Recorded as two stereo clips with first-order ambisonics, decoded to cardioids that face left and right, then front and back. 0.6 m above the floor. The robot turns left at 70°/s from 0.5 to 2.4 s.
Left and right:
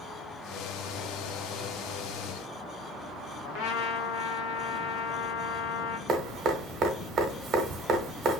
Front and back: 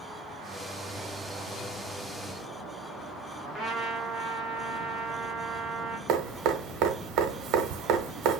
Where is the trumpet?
85° left, 1.0 m.